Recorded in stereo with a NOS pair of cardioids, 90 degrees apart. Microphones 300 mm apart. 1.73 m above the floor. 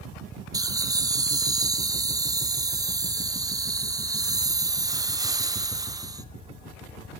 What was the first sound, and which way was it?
Laughter, 15° right.